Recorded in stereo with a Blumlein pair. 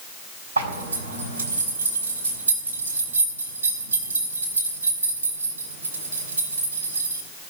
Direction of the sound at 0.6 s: 65° right.